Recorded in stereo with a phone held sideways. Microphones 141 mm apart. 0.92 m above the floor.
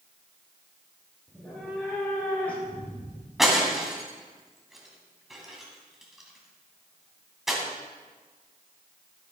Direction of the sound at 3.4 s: Centre (ahead or behind).